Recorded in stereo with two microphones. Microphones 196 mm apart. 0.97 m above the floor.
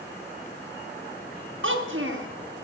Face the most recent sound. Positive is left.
turn(degrees=-85)